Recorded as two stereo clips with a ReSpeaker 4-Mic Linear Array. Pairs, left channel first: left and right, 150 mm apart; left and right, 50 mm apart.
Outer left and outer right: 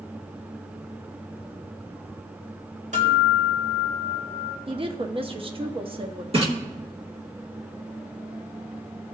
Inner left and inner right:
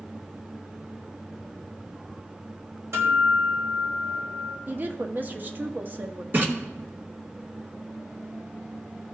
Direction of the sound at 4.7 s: 35° right (ahead or behind).